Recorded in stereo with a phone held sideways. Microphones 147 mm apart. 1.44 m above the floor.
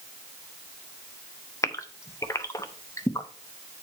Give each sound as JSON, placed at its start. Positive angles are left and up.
{"t": 1.6, "sound": "a gasp", "side_deg": 20, "distance_m": 0.8}